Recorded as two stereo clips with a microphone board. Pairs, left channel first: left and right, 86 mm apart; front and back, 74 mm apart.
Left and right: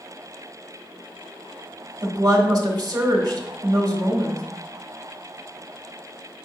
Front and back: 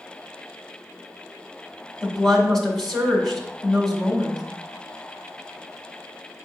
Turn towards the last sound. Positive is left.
turn(degrees=-75)